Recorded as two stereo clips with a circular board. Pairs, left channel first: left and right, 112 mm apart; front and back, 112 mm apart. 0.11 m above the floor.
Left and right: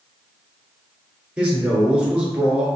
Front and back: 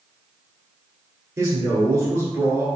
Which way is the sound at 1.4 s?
160° right.